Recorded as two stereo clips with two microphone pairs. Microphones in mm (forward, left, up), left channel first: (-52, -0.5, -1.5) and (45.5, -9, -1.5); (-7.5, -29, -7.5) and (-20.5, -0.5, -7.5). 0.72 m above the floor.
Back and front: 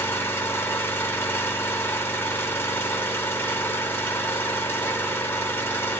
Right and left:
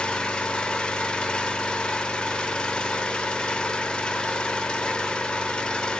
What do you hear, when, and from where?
0.0 s an engine running: 120° right, 0.8 m